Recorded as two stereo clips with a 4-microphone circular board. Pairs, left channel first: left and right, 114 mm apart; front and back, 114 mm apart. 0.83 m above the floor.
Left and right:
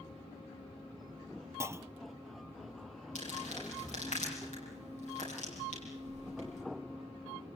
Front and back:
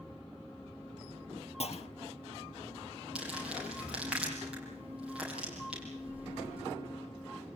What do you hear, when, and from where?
1.6 s a clunk: 25° right, 0.5 m
3.1 s crumpling: 100° left, 9.5 m